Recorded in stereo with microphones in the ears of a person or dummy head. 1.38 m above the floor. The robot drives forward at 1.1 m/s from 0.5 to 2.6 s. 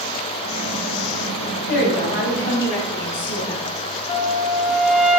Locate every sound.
1.7 s a woman speaking: 35° left (ahead or behind), 3 m; by 3.6 s 50° left (ahead or behind), 2.5 m
4.1 s a flute: 45° left (ahead or behind), 0.9 m